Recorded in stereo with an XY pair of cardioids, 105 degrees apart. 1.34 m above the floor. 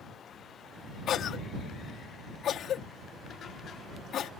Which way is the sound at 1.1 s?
60° left.